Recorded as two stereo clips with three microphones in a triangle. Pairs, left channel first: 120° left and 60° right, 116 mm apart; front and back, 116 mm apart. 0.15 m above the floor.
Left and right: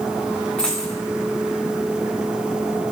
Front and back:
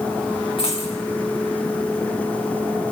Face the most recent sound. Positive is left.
turn(degrees=40)